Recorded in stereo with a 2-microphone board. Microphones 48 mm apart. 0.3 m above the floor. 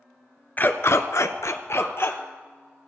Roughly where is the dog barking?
Left.